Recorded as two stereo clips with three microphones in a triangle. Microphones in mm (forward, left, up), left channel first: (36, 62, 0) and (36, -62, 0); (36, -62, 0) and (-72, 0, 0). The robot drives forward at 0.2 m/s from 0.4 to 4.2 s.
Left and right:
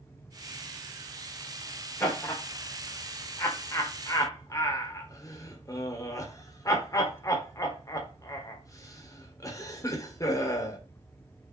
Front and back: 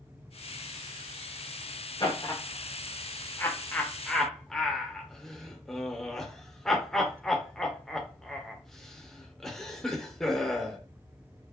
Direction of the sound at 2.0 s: 20° left.